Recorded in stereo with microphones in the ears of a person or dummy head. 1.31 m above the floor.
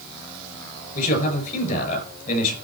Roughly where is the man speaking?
Left.